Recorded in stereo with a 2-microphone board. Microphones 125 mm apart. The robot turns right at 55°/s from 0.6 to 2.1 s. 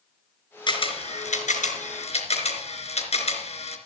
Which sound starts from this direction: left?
A camera shutter, at 0.7 s.